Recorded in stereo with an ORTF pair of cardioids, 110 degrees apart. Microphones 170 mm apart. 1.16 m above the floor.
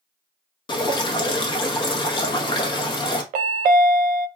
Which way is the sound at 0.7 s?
30° left.